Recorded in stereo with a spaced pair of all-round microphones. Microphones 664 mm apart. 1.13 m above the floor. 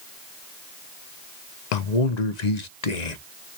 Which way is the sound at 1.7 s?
85° left.